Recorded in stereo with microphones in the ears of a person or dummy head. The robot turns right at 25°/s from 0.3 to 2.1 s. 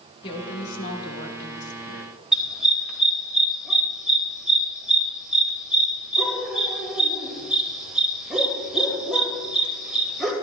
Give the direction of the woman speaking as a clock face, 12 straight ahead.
11 o'clock.